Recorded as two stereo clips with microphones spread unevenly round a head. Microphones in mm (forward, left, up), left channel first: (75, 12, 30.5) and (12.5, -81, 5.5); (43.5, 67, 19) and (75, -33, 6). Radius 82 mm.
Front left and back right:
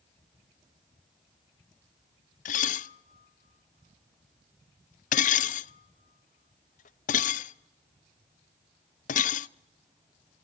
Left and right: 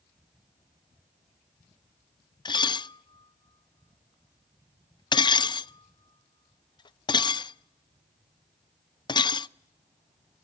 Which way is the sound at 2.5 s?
60° left.